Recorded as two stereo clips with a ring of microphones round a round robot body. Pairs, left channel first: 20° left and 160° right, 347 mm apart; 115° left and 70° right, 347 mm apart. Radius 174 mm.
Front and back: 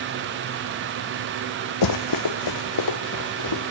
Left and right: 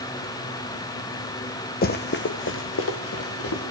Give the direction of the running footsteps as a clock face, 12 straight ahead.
10 o'clock.